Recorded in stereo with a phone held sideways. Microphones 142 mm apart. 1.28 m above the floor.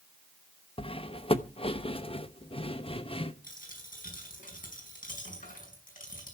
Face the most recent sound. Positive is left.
turn(degrees=75)  # may be behind; listen again after turning